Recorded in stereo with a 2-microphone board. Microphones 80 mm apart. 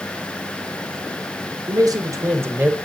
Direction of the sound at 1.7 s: 55° right (ahead or behind).